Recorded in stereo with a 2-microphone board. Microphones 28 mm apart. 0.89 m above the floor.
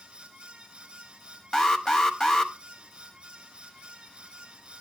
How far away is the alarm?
About 1.0 m.